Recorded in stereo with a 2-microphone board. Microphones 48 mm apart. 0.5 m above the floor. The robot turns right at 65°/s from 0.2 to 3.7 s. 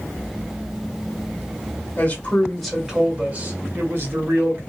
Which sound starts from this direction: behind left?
A man speaking, at 2.0 s.